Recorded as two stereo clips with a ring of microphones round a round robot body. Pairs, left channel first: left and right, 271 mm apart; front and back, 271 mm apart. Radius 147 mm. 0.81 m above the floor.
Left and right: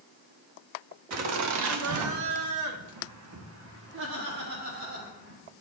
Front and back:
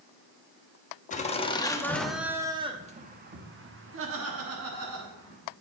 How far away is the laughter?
About 1.2 m.